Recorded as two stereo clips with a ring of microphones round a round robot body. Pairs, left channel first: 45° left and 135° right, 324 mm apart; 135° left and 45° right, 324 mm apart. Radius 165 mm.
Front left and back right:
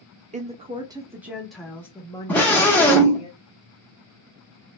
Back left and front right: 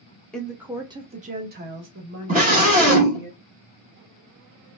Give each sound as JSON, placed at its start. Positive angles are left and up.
{"t": 0.3, "sound": "a woman speaking", "azimuth_deg": -140, "distance_m": 1.0}
{"t": 2.3, "sound": "a scream", "azimuth_deg": -35, "distance_m": 1.3}